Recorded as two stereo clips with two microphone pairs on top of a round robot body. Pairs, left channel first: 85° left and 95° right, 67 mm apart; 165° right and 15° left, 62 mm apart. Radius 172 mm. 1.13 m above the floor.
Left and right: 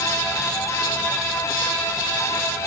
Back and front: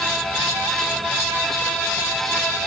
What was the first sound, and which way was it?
Only background noise.